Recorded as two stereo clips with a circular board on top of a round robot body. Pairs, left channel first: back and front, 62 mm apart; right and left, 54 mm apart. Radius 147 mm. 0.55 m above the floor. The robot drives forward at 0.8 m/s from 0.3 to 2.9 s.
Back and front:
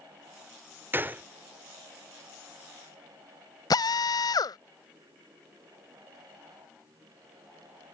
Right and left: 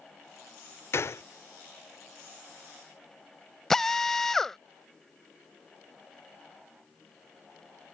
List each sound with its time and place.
0.9 s a gunshot: 55° right; by 1.2 s 60° right
3.7 s a drill: 170° right